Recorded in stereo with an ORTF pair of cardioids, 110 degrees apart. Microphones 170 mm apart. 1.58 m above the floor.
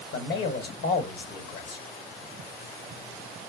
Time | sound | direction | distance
0.1 | a man speaking | 65° left | 1.2 m